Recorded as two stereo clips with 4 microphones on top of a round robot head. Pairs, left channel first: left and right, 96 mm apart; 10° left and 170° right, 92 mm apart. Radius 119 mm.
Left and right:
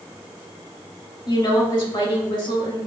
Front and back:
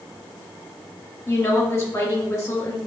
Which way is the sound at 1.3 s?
60° left.